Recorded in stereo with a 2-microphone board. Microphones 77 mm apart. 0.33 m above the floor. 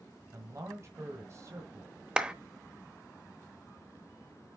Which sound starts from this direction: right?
A man speaking, at 0.3 s.